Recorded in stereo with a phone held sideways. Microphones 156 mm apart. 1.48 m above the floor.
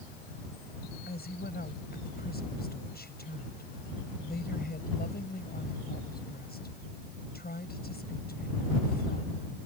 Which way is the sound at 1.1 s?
70° left (ahead or behind).